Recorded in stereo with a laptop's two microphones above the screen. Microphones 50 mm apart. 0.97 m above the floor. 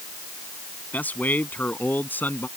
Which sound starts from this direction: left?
A man speaking, at 0.9 s.